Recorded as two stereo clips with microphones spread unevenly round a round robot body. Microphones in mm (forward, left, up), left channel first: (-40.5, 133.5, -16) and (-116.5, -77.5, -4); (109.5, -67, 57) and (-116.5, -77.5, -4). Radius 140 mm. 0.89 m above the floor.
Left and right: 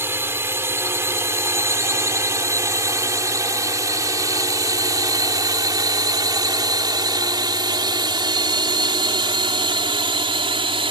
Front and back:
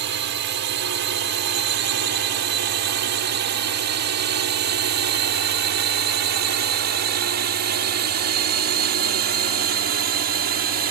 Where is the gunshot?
I don't hear a gunshot.